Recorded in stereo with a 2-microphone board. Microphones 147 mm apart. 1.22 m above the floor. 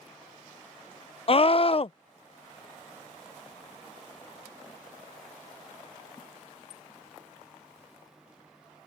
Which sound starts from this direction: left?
A scream, at 1.3 s.